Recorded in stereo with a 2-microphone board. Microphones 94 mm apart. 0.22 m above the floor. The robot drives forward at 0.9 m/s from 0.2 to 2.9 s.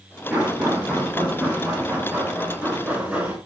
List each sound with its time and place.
0.3 s knocking: 15° right (ahead or behind), 3.5 m; by 3.4 s 10° right (ahead or behind), 6 m